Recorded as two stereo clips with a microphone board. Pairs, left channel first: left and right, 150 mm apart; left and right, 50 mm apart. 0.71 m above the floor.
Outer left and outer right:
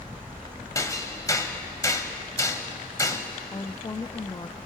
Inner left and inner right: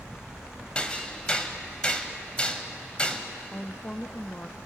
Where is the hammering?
20° left (ahead or behind), 1.4 m.